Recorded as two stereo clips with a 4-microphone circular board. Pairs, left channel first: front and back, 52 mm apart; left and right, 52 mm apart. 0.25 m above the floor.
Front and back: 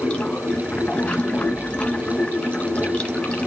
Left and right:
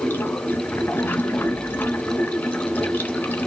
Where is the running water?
60° left, 1.1 m.